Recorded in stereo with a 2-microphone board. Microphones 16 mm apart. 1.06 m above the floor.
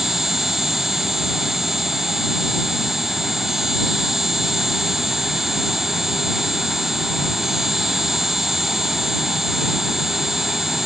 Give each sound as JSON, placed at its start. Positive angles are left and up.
{"t": 0.0, "sound": "an insect", "side_deg": -30}